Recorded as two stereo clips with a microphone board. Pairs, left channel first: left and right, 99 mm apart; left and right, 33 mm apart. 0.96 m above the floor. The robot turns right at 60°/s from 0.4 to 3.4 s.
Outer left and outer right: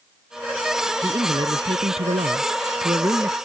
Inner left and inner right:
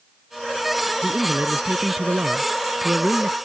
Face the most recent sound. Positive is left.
turn(degrees=-15)